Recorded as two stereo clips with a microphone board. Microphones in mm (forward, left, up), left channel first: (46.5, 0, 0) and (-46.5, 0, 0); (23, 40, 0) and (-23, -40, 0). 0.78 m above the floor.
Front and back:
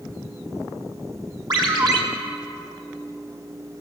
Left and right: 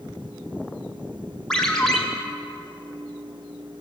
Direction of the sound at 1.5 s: 140° left.